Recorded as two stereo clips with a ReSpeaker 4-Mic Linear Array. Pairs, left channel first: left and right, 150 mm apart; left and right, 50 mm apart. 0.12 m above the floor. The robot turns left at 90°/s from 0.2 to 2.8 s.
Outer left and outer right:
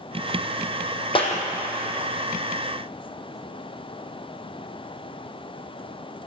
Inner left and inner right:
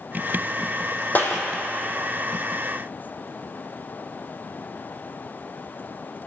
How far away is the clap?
About 4 m.